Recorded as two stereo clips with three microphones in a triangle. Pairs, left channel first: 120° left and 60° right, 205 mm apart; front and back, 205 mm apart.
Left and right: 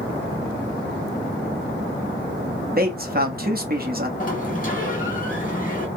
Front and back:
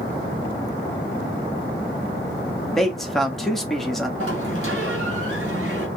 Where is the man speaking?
90° right, 1.0 m.